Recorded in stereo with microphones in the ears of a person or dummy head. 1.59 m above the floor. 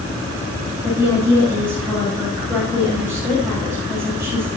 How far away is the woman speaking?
About 9.5 m.